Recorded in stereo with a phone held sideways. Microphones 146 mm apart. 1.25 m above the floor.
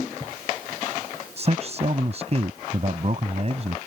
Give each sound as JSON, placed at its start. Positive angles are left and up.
{"t": 1.4, "sound": "a man speaking", "side_deg": -45}